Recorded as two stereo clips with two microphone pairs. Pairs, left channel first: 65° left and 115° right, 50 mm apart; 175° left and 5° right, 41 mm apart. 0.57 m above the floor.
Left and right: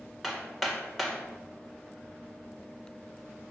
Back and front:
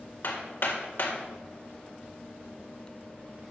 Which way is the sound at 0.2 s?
155° left.